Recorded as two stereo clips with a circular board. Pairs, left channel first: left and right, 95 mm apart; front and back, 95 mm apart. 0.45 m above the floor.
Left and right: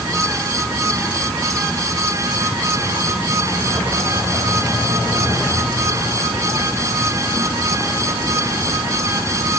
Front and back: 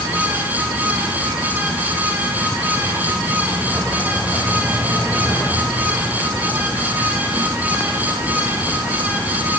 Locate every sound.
Only background noise.